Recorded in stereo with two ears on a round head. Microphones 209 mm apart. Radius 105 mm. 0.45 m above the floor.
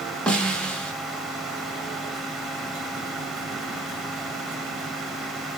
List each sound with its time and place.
0.3 s a snare drum: 5° left (ahead or behind), 0.9 m